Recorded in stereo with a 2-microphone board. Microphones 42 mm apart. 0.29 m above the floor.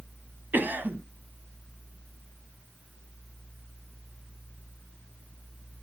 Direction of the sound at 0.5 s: 50° right (ahead or behind).